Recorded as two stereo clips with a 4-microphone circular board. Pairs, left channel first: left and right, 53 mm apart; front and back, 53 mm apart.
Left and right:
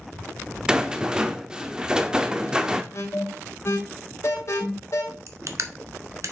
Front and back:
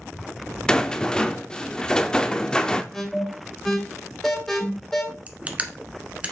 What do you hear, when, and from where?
0.7 s a rattle: 45° right, 0.6 m
2.9 s an alarm: 80° left, 2 m
5.3 s crushing: 115° right, 0.9 m